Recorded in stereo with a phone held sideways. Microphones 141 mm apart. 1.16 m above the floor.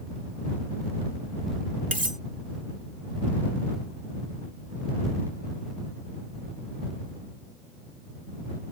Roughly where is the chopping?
I don't hear chopping.